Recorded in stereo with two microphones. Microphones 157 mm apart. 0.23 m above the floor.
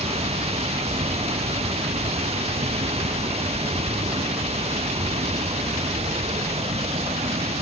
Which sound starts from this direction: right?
Running water, at 0.0 s.